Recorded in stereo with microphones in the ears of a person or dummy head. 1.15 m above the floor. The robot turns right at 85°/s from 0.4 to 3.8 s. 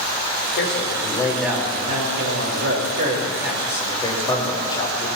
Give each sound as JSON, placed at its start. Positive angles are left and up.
{"t": 0.6, "sound": "a man speaking", "azimuth_deg": 105, "distance_m": 4.5}